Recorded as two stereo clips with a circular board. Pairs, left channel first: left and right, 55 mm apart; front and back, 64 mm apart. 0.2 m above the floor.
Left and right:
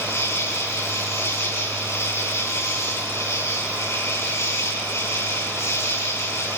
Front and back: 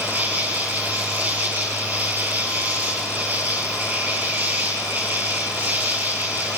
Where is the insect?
120° left, 6.5 m.